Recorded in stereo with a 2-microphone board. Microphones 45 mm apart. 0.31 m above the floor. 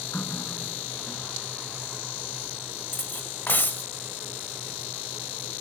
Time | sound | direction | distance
0.1 | a running tap | 65° left (ahead or behind) | ?
2.9 | cutlery clinking | 50° left (ahead or behind) | ?